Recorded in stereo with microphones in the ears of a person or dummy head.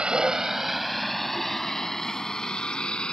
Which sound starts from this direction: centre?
A vehicle, at 0.0 s.